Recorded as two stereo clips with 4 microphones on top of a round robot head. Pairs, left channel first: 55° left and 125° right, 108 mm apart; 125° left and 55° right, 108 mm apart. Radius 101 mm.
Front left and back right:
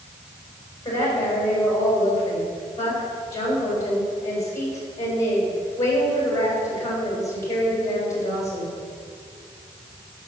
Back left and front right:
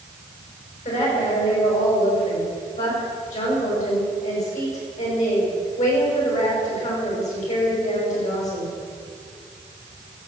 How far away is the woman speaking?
About 6.5 m.